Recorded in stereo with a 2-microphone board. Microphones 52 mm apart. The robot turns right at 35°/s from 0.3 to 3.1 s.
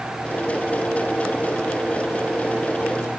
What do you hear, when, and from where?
Only background noise.